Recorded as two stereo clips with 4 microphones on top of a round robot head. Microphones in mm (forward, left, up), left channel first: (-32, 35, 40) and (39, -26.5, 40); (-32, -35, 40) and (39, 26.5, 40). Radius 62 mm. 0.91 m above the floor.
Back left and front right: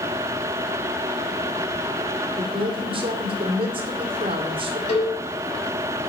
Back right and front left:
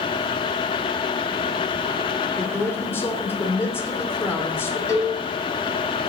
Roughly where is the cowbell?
Behind.